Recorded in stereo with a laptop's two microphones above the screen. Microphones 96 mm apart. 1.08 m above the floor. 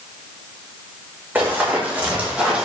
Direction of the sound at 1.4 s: 20° right (ahead or behind).